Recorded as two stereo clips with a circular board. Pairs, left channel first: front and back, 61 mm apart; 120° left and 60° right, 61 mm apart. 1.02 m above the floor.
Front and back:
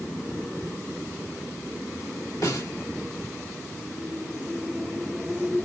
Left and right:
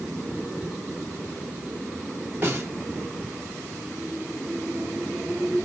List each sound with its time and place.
2.4 s a snare drum: 10° right, 3 m